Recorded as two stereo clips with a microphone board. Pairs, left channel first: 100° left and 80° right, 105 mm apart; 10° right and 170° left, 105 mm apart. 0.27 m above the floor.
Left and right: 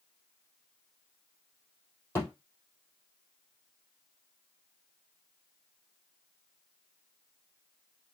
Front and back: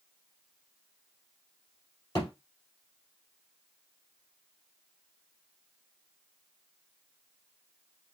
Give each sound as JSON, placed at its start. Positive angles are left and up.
{"t": 2.1, "sound": "a thud", "azimuth_deg": 40, "distance_m": 3.5}